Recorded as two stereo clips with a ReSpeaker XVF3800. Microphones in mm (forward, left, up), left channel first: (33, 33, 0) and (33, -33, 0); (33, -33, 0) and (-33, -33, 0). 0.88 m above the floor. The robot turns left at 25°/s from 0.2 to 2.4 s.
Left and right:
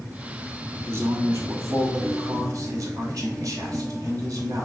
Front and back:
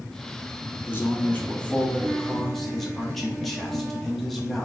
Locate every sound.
0.9 s a man speaking: 50° right, 1.3 m; by 4.7 s 85° right, 1.3 m